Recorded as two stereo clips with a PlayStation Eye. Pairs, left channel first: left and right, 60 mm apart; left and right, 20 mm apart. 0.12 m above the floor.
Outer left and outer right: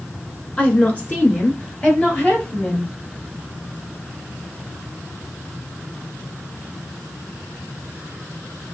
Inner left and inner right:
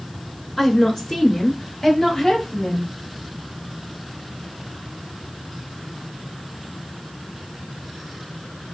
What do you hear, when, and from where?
0.6 s a woman speaking: 20° left (ahead or behind), 1.3 m; by 2.9 s 30° left (ahead or behind), 2.5 m